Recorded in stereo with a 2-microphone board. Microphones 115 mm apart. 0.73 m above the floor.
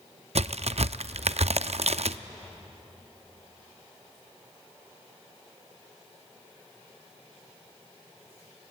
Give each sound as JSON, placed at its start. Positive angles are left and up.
{"t": 0.3, "sound": "a crack", "side_deg": -65, "distance_m": 0.5}